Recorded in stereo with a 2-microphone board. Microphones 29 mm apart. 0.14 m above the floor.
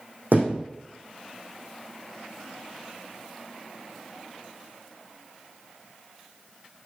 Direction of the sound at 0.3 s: 70° right (ahead or behind).